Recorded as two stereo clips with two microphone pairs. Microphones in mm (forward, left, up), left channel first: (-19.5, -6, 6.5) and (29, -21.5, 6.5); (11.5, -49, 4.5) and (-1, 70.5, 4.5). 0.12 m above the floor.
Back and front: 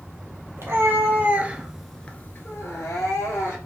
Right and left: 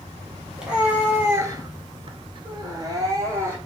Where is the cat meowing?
15° left, 1.1 m; by 3.6 s 160° left, 1.3 m.